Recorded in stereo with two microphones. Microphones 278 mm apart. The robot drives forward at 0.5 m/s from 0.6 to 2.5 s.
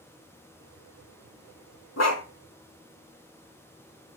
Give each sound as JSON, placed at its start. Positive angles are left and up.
{"t": 2.0, "sound": "a dog barking", "side_deg": 70, "distance_m": 0.8}